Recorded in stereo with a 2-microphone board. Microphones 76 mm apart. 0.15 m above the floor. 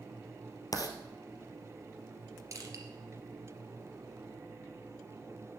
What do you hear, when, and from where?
0.7 s writing: 55° left (ahead or behind), 1.5 m
2.5 s crushing: 45° right (ahead or behind), 2.5 m